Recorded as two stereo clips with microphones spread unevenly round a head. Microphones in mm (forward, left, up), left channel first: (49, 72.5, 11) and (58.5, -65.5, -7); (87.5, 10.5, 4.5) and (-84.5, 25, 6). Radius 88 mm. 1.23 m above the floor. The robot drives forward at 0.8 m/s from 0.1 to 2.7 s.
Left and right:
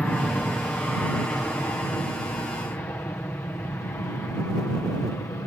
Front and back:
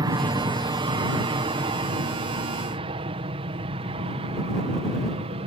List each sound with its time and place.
0.0 s an aircraft: 170° left; by 5.5 s 160° left